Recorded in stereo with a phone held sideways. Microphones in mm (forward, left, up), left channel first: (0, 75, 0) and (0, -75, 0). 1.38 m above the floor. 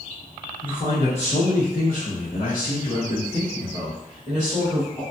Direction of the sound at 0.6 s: 30° left (ahead or behind).